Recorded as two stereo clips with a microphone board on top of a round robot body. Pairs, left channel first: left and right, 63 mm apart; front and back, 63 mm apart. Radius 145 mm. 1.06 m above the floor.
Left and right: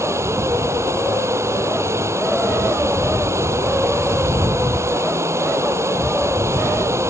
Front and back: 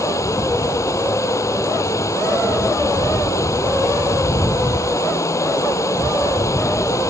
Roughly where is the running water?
Ahead right.